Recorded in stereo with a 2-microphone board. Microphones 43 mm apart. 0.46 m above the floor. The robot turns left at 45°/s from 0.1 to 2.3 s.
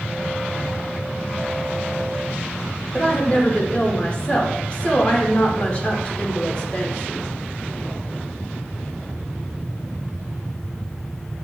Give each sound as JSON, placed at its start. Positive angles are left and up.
{"t": 2.9, "sound": "a woman speaking", "side_deg": 25, "distance_m": 0.9}